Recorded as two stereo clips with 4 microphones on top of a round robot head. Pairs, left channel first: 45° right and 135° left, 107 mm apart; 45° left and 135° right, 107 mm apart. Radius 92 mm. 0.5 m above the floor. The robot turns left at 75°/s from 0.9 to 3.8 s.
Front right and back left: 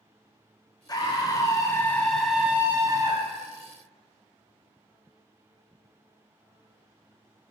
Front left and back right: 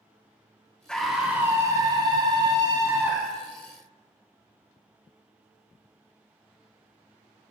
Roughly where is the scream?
Ahead right.